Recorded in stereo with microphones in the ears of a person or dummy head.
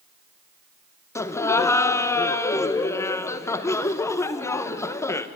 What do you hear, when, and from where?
1.1 s laughter: 10° left (ahead or behind), 1.0 m